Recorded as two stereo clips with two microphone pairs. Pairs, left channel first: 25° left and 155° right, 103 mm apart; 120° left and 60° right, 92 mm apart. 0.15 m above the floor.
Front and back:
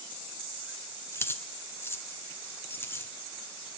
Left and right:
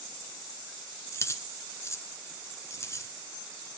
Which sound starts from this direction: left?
Keys jangling, at 1.1 s.